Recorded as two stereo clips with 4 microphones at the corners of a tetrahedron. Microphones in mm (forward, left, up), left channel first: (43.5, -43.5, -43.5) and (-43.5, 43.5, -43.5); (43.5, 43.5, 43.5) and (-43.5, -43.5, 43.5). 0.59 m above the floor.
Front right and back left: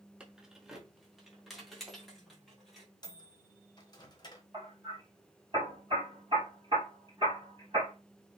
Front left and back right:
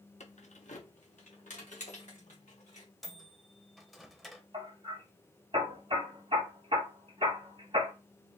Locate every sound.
0.2 s keys jangling: 55° left, 0.7 m; by 2.9 s 45° left, 2.5 m
3.0 s a microwave: 45° right, 0.8 m
4.5 s hammering: 175° right, 3.5 m